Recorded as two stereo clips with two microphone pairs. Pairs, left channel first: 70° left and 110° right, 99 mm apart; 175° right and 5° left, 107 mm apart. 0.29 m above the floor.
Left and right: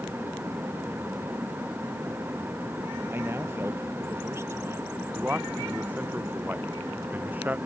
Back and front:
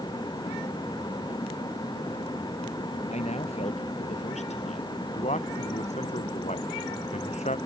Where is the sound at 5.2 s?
Straight behind.